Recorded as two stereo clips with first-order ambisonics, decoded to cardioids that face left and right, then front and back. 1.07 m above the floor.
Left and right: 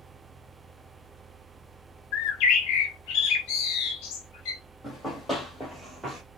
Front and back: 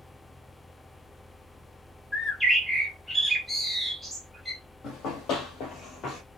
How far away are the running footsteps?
About 1.6 m.